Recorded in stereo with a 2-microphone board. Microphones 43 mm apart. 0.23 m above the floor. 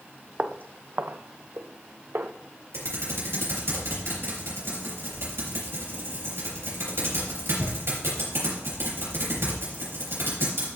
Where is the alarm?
I don't hear an alarm.